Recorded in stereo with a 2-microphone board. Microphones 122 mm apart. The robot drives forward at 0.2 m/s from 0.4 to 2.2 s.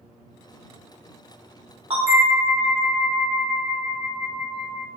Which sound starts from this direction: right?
A bell, at 1.9 s.